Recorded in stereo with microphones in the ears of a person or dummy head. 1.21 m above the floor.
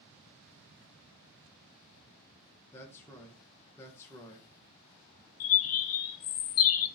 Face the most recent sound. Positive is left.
turn(degrees=70)  # may be behind; listen again after turning